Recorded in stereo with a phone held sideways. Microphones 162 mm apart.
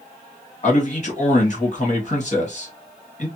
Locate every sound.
0.6 s a man speaking: 50° left (ahead or behind), 1.5 m